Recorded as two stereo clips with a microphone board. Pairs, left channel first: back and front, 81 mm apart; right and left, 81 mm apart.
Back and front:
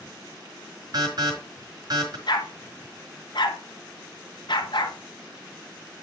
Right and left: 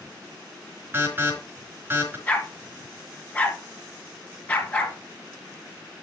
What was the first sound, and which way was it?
An alarm, 25° left.